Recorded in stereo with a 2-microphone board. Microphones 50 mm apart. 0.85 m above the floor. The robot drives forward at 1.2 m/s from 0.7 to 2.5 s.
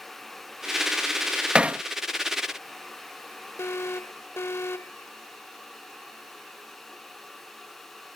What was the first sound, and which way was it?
Hammering, 20° right (ahead or behind).